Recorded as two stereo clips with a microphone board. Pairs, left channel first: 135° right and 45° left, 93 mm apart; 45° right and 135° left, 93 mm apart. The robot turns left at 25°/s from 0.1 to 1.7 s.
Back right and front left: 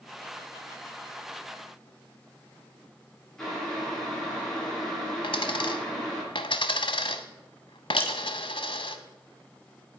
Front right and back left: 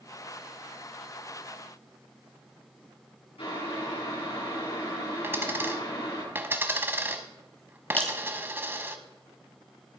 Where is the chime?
I don't hear a chime.